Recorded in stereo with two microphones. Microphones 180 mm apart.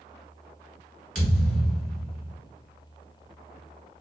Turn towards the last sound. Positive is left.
turn(degrees=0)  # may be behind; listen again after turning